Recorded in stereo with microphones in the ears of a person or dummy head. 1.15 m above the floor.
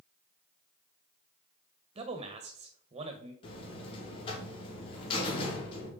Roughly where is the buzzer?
Left.